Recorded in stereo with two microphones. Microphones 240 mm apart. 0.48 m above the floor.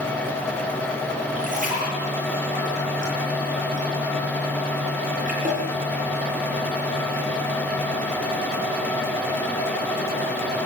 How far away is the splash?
About 9.5 m.